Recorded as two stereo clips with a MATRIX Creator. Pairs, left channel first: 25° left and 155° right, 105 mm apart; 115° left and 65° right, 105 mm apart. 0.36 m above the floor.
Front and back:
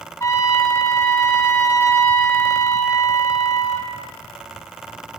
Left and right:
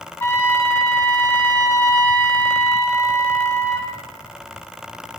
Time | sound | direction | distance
0.2 | a trumpet | 60° left | 1.6 m